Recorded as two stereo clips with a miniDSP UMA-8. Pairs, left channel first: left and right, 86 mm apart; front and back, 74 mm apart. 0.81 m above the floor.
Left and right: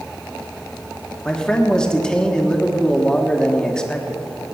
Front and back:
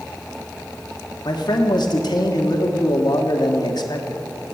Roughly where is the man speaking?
Ahead.